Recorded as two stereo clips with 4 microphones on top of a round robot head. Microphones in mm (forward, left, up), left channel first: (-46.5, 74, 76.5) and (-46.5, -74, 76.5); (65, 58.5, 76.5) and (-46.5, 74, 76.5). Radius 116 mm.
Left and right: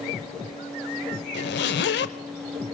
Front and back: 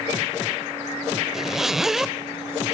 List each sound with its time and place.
1.3 s a zipper: 85° left, 0.7 m